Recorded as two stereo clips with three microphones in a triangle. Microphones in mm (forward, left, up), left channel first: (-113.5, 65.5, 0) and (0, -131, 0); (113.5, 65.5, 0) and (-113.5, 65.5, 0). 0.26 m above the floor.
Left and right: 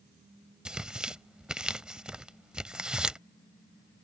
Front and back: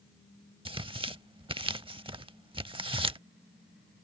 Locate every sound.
0.7 s tearing paper: 145° right